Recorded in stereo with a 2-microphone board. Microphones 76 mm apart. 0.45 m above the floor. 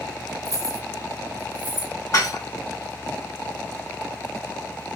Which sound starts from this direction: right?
Keys jangling, at 0.5 s.